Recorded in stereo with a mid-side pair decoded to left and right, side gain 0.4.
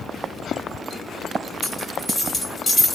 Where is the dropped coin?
30° left, 2 m.